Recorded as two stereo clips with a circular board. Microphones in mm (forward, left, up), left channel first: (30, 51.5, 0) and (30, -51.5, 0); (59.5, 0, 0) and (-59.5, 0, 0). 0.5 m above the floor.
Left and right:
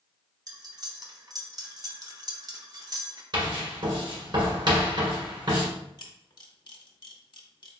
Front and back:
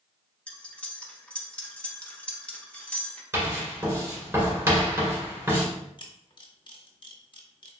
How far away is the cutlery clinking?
About 0.6 m.